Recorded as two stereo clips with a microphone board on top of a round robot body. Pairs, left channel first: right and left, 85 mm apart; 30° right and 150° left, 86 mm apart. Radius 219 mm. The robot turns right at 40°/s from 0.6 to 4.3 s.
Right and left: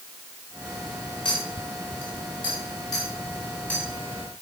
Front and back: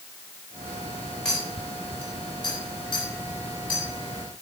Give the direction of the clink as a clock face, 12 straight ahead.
4 o'clock.